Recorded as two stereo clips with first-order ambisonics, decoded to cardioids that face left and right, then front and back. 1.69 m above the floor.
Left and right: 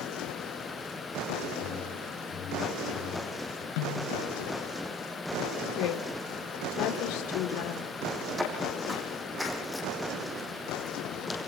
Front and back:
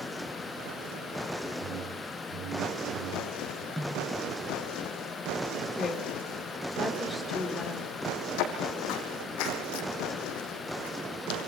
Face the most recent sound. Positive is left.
turn(degrees=15)